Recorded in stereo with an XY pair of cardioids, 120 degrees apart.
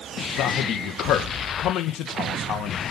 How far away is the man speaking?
About 1.9 m.